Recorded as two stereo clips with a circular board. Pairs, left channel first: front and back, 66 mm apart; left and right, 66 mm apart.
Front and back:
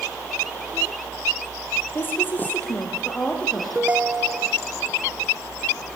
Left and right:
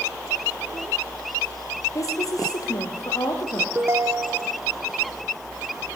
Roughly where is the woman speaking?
Ahead left.